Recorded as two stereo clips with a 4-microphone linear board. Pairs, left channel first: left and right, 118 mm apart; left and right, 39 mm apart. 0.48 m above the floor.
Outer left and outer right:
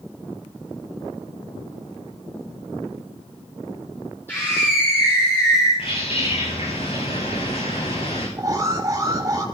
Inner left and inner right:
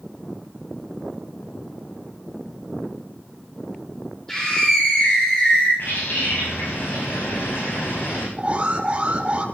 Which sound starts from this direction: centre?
A scream, at 4.3 s.